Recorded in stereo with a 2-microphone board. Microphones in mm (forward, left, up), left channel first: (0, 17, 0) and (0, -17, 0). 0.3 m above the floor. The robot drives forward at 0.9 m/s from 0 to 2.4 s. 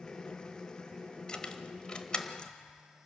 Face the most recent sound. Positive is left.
turn(degrees=25)  # may be behind; listen again after turning